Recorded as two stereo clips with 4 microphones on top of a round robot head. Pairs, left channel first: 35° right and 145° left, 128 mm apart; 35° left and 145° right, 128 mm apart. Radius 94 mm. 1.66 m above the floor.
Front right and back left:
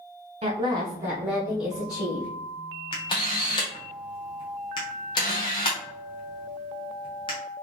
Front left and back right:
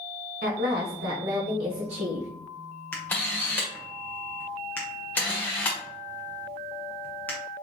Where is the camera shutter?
30° right, 0.6 m.